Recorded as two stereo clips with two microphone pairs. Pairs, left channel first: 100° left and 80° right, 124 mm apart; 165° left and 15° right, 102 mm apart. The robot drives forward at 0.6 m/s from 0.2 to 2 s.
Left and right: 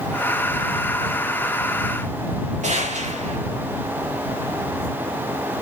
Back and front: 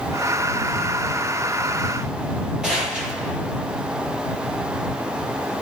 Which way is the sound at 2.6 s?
95° right.